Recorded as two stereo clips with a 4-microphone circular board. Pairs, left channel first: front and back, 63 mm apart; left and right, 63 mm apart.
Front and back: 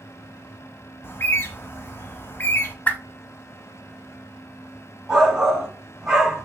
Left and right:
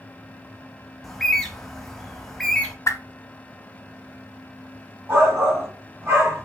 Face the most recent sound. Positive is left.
turn(degrees=-100)